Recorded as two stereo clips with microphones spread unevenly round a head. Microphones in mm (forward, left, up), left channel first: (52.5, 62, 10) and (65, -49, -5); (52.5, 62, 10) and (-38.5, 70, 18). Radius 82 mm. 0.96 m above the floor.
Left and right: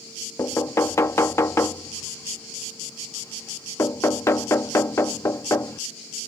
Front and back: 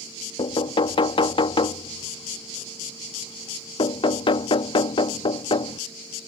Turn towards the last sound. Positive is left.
turn(degrees=25)